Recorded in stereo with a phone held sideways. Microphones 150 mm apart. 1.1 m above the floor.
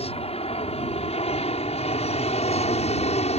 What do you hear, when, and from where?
0.0 s an aircraft: 40° left (ahead or behind); by 3.4 s 45° left (ahead or behind)